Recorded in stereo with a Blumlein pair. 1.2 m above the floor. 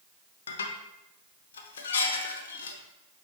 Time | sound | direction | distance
0.5 | dishes clattering | 65° left | 0.6 m